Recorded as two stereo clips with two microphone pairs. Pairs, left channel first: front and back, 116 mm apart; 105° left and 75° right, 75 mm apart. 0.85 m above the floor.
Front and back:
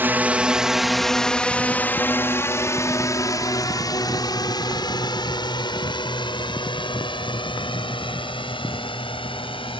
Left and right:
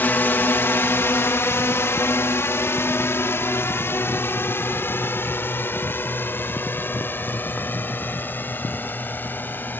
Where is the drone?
130° left; by 9.8 s 45° left.